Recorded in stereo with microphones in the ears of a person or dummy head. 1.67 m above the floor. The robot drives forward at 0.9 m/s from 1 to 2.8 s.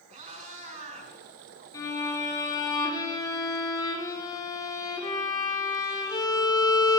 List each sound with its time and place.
0.1 s a cat meowing: 35° right (ahead or behind), 6 m
1.7 s a violin: 15° left (ahead or behind), 4.5 m; by 7.0 s 20° left (ahead or behind), 3.5 m